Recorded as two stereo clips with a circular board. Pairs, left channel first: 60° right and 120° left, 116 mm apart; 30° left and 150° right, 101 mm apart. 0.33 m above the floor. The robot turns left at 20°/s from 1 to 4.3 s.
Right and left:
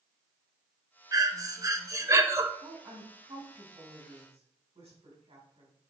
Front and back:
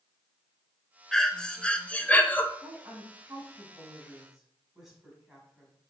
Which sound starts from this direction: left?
Breathing, at 1.1 s.